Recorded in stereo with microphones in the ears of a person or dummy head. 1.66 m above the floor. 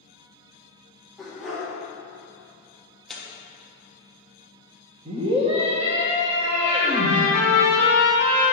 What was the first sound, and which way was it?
A dog barking, centre (ahead or behind).